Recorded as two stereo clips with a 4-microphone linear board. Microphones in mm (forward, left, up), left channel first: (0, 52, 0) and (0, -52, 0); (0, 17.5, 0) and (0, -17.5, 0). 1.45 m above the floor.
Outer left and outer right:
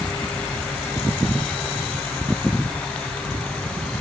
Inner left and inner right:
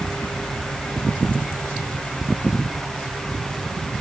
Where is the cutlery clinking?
No cutlery clinking in this recording.